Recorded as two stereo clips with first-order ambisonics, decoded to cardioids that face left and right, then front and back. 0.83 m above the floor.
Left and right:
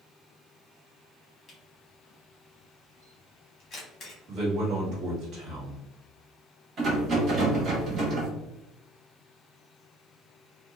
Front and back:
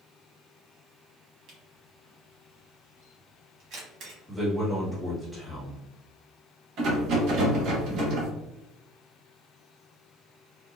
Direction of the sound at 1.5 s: 150° left.